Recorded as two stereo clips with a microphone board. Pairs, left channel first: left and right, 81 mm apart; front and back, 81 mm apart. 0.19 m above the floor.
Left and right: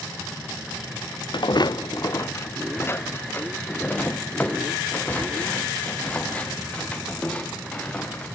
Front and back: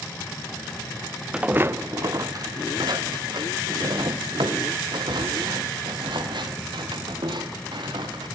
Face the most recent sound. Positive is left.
turn(degrees=165)